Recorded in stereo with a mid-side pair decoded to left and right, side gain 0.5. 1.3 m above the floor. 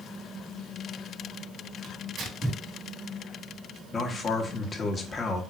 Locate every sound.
1.8 s tearing paper: 55° right, 2 m
3.9 s a man speaking: 35° left, 1.3 m